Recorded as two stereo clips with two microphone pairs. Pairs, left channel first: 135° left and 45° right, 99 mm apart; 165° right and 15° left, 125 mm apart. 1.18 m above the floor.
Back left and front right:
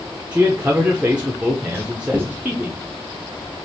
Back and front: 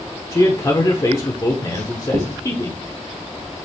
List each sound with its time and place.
0.3 s a man speaking: 115° right, 0.8 m
1.7 s writing: 25° left, 2 m